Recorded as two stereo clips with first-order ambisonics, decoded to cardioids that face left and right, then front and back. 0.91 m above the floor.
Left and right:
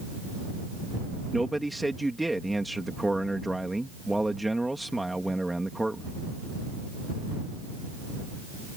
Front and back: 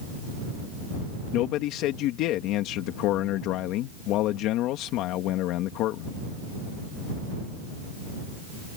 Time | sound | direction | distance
1.3 | a man speaking | 5° right | ?